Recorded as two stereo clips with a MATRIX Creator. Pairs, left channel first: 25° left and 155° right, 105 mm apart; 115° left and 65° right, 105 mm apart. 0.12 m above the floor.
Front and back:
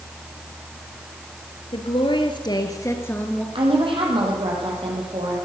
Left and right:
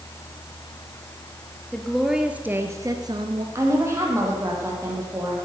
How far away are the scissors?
I don't hear scissors.